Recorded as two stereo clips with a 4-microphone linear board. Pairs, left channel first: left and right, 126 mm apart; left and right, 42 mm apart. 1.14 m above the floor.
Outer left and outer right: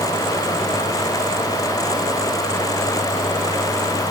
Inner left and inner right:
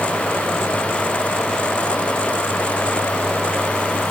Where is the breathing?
I don't hear breathing.